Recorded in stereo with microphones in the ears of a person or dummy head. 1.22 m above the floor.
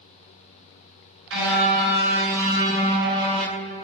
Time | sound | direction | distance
1.3 | a car horn | 70° right (ahead or behind) | 7.5 m